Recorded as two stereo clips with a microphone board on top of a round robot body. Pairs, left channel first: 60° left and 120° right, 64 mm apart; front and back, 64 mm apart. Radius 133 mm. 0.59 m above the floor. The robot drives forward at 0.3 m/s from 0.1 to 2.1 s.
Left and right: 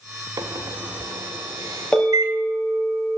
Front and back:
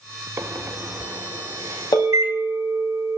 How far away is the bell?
About 3.5 m.